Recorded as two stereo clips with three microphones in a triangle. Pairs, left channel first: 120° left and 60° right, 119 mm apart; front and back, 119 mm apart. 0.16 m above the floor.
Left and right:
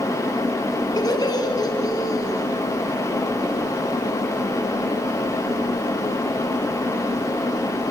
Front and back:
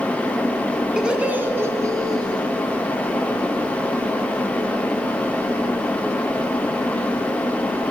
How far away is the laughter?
About 1.3 m.